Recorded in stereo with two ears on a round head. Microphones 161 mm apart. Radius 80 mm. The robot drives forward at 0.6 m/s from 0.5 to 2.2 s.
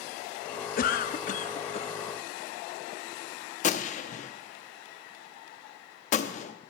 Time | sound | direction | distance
0.8 | a cough | 50° left (ahead or behind) | 0.7 m
3.6 | a gunshot | 40° left (ahead or behind) | 0.7 m